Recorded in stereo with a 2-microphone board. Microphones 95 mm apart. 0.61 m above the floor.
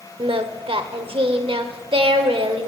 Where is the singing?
70° right (ahead or behind), 0.8 m.